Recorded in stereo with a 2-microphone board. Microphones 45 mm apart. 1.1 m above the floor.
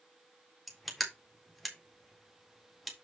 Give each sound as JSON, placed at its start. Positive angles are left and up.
{"t": 0.7, "sound": "crushing", "side_deg": 0, "distance_m": 1.9}